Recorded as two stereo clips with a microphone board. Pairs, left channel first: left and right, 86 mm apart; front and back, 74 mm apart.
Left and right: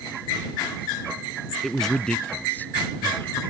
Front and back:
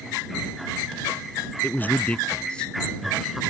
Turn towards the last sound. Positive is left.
turn(degrees=90)